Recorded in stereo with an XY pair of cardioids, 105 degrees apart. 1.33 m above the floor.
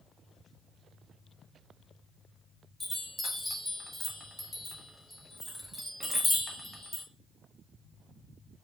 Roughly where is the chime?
Ahead.